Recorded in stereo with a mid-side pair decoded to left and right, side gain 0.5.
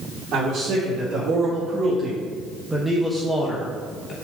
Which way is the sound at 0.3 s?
50° right.